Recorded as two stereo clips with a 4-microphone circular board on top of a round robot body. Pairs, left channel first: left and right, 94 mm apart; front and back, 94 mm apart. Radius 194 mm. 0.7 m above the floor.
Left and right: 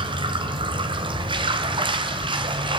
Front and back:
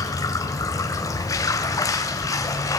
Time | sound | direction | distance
0.0 | running water | 55° right | 1.7 m